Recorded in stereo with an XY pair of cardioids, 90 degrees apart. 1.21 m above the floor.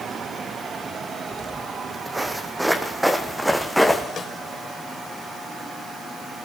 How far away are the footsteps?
About 4 m.